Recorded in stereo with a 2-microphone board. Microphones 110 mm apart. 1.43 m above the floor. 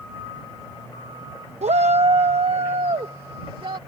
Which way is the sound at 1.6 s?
85° right.